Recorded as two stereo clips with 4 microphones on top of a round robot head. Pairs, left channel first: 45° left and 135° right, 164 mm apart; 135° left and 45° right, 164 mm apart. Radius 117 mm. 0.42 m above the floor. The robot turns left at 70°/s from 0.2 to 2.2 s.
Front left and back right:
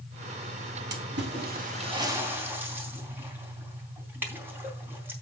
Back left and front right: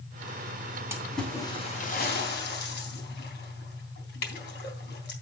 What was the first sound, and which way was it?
A splash, 120° right.